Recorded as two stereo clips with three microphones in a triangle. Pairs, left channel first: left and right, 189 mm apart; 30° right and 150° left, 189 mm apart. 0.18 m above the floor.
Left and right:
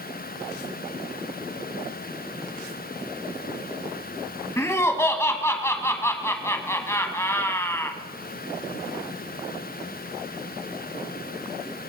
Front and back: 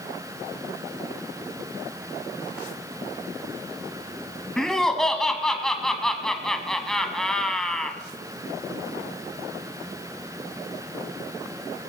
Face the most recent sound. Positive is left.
turn(degrees=50)